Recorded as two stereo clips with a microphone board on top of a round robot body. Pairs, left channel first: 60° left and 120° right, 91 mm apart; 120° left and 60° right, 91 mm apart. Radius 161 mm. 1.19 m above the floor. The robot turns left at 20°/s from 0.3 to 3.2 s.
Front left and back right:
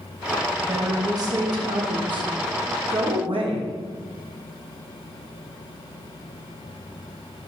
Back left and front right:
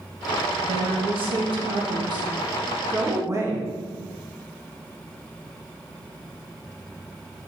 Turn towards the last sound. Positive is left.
turn(degrees=-115)